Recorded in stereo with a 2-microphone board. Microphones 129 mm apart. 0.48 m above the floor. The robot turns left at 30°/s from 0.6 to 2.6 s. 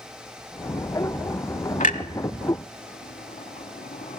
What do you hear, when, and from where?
1.8 s a clunk: 80° left, 0.8 m; by 4.2 s 75° left (ahead or behind), 0.8 m